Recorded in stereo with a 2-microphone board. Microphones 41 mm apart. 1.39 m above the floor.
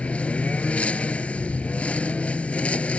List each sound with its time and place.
0.0 s a lawn mower: 35° left (ahead or behind)